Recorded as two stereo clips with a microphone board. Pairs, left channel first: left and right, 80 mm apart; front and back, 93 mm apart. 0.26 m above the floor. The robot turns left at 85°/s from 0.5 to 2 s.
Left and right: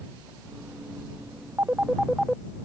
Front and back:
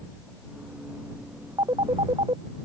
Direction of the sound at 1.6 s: 145° right.